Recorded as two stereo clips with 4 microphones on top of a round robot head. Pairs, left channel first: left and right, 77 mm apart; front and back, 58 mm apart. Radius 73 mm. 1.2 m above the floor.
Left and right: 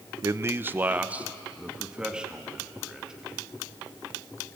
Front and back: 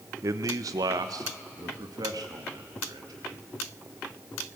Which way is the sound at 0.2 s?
140° right.